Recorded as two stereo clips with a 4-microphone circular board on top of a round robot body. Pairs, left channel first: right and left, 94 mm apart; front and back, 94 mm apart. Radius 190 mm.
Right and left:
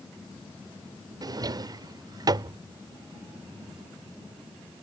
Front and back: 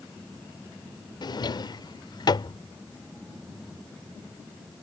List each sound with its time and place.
1.2 s a drawer: 45° left